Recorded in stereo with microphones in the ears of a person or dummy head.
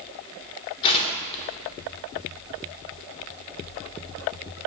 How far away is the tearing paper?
About 1.0 m.